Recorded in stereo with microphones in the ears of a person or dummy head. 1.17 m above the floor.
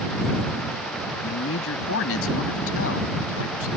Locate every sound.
1.2 s a man speaking: 80° left